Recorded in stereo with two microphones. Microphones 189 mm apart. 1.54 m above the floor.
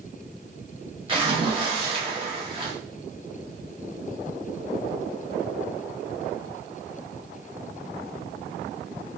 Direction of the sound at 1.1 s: 25° right (ahead or behind).